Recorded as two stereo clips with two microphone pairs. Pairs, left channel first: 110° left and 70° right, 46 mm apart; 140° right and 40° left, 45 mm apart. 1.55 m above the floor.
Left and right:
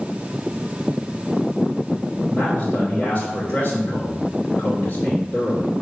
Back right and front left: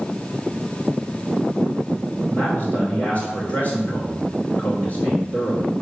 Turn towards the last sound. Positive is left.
turn(degrees=180)